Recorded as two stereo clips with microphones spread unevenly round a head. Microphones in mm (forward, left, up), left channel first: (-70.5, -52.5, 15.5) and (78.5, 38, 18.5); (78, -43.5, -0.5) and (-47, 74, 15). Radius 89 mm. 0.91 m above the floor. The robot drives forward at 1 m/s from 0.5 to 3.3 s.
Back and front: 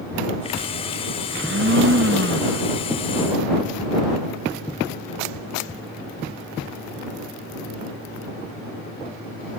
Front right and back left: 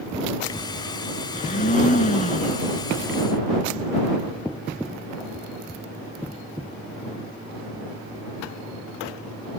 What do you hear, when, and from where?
1.3 s a blender: 5° left